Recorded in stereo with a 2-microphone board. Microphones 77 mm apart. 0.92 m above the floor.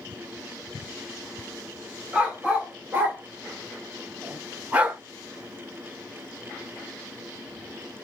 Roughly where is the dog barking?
Centre.